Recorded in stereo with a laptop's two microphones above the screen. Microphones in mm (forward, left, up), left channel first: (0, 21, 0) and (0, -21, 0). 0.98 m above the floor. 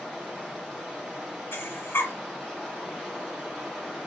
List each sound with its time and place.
0.0 s running water: centre (ahead or behind), 2.5 m
1.5 s breathing: 90° left, 1.7 m